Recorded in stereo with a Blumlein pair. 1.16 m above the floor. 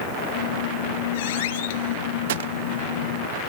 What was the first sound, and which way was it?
A squeak, 55° left.